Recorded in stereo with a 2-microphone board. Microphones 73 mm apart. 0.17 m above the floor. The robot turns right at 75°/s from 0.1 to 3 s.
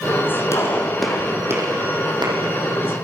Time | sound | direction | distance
0.5 | a gunshot | 40° left (ahead or behind) | 7 m